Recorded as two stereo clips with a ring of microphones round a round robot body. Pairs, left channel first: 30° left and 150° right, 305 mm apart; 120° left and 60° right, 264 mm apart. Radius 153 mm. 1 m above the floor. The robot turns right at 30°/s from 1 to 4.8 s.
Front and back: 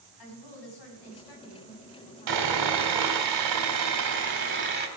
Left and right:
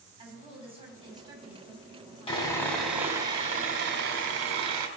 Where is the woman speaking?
10° left, 5.5 m; by 2.9 s 70° left, 5.5 m.